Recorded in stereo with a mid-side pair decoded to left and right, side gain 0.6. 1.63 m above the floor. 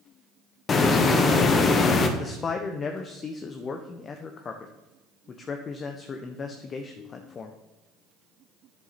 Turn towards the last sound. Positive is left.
turn(degrees=40)